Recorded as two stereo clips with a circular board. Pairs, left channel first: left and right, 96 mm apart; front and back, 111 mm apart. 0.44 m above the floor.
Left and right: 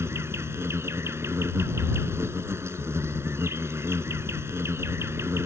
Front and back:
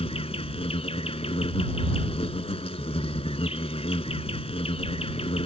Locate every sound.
0.0 s an insect: 25° right